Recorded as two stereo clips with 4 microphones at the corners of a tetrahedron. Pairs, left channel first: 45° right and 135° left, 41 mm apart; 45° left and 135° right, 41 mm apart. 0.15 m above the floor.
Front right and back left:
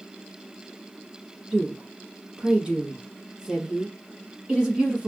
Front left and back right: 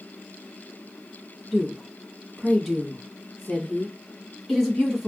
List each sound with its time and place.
1.5 s a woman speaking: 140° left, 1.2 m